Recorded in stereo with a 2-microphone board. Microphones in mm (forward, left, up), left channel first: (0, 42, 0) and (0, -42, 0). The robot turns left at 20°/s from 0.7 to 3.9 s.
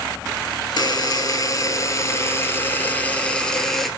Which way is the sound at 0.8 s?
65° left.